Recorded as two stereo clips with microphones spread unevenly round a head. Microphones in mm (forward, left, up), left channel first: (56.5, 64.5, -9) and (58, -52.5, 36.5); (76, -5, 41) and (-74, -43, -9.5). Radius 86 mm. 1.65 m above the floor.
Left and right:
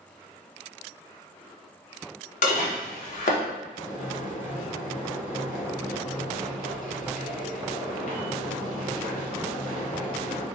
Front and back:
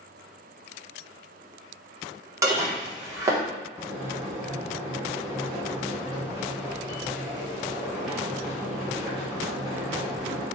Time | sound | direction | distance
2.4 | dishes clattering | 110° left | 1.0 m
3.8 | boiling | 105° left | 1.0 m